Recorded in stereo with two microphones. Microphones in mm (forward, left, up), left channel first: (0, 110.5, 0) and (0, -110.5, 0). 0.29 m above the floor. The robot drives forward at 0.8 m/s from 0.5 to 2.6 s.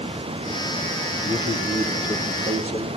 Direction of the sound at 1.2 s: 10° right (ahead or behind).